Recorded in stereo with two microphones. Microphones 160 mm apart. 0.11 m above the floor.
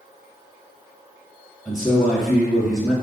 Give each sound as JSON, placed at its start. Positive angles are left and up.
{"t": 1.6, "sound": "a man speaking", "side_deg": -5, "distance_m": 2.0}